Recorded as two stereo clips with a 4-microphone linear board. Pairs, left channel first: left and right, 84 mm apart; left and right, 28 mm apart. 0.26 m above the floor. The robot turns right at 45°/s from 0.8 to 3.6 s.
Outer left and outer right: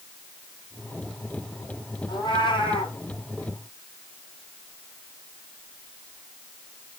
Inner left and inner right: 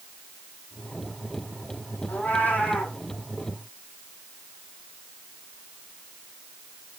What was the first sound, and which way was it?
A cat meowing, 60° left.